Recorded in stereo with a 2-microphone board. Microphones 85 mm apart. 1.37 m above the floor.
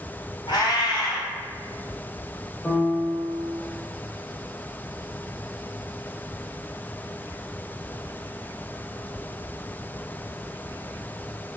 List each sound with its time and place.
0.5 s a cat meowing: 50° left (ahead or behind), 1.7 m
2.6 s a piano: 10° left (ahead or behind), 0.7 m